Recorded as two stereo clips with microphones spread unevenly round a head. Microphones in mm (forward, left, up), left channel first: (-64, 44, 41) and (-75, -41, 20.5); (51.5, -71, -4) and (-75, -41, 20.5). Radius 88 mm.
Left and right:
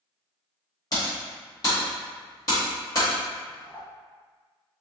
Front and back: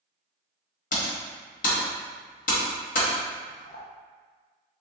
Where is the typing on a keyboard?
20° left, 1.2 m.